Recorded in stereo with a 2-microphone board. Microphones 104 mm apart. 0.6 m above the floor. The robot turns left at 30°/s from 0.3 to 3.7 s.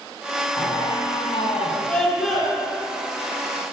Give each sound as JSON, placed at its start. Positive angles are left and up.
{"t": 0.6, "sound": "a squeak", "azimuth_deg": 150, "distance_m": 3.5}
{"t": 1.9, "sound": "a scream", "side_deg": 10, "distance_m": 8.5}